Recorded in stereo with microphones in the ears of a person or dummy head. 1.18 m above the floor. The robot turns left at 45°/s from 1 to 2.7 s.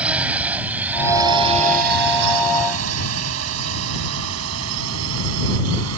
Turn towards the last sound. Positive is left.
turn(degrees=-75)  # may be behind; listen again after turning